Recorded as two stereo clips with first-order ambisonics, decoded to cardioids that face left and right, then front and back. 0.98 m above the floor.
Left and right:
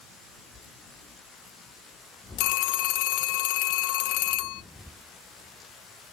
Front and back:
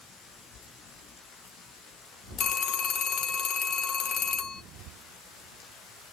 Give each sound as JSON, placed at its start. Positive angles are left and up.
{"t": 2.4, "sound": "a phone ringing", "azimuth_deg": 60, "distance_m": 0.6}